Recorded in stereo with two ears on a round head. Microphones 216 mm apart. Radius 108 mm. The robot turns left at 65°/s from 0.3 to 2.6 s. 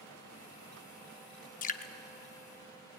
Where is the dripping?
35° left (ahead or behind), 0.7 m; by 1.9 s 25° left (ahead or behind), 0.7 m.